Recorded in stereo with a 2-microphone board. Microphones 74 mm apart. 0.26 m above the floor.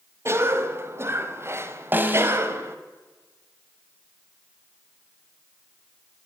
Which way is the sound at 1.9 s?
25° right (ahead or behind).